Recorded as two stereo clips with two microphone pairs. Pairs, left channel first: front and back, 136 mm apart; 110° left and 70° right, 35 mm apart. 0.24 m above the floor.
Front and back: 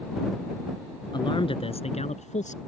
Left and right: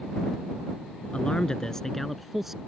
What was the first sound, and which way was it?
A man speaking, 55° left.